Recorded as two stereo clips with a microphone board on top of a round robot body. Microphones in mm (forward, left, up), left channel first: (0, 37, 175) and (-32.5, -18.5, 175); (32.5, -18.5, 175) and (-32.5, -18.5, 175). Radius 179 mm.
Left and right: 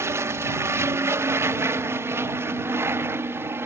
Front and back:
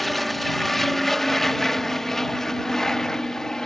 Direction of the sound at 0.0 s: 85° right.